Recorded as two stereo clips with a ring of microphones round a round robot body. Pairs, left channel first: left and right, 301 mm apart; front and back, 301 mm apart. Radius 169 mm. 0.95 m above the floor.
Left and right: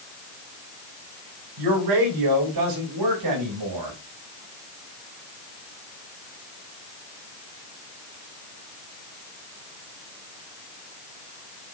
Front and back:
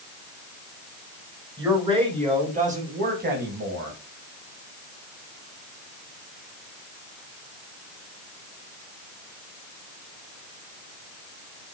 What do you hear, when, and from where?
1.6 s a man speaking: 100° right, 5 m; by 4.0 s 130° right, 6 m